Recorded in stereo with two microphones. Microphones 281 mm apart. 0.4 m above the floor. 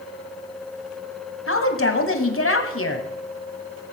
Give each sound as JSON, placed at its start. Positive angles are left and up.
{"t": 1.5, "sound": "a woman speaking", "side_deg": 50, "distance_m": 2.0}